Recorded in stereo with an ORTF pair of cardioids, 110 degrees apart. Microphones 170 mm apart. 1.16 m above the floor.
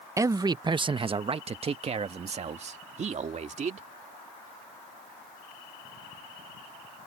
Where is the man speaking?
20° right; by 3.9 s 45° right.